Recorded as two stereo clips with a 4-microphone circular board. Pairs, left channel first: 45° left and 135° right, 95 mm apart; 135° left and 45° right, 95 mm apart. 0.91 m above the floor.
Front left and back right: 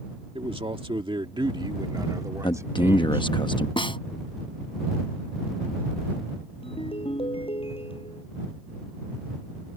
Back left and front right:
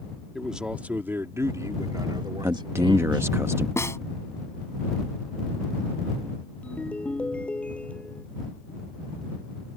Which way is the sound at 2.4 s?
15° left.